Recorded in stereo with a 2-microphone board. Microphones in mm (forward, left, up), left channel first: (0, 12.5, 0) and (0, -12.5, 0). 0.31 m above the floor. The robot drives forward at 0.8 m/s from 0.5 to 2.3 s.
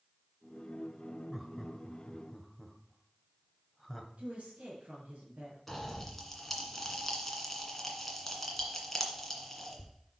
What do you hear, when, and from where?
1.3 s laughter: 5° right (ahead or behind), 1.2 m
4.2 s a woman speaking: 65° right (ahead or behind), 4 m
5.7 s a pop: 5° left (ahead or behind), 1.9 m